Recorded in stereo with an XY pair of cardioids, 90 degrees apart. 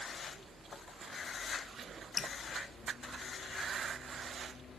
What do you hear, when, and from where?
2.2 s dripping: 50° left, 1.5 m